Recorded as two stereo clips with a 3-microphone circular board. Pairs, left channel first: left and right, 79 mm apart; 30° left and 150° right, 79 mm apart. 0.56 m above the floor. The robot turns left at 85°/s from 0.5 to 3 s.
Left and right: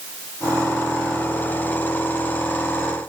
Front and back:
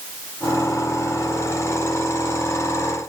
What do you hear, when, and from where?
Only background noise.